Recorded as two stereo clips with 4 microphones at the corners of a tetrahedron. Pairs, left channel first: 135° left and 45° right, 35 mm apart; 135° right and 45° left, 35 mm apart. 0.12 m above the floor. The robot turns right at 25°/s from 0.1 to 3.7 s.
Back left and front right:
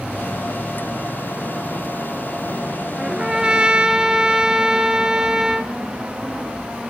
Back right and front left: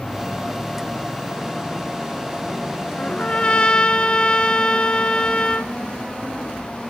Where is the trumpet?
110° right, 0.7 m; by 5.7 s 95° right, 0.7 m.